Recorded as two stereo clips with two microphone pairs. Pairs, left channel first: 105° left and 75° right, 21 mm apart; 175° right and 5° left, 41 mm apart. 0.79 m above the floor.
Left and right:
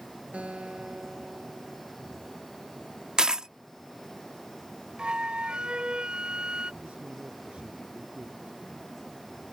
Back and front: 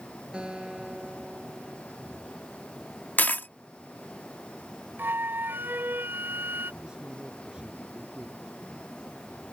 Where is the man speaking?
65° right.